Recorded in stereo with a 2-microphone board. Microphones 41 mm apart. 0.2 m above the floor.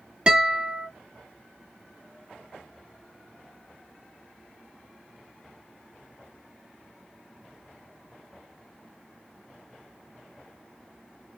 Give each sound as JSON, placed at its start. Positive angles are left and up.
{"t": 0.3, "sound": "a guitar", "side_deg": -25, "distance_m": 1.3}